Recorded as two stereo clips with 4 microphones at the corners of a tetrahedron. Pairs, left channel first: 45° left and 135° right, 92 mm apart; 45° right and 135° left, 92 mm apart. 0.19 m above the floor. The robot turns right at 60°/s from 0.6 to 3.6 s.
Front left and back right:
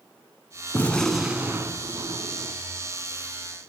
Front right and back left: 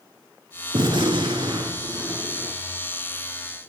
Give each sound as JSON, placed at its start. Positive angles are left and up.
{"t": 0.7, "sound": "a gunshot", "azimuth_deg": 110, "distance_m": 0.6}